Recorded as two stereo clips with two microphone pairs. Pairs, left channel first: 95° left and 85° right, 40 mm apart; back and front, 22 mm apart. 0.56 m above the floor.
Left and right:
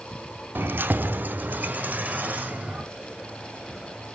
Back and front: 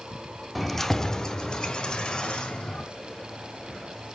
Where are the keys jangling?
90° right, 0.6 m; by 2.8 s 135° right, 1.8 m.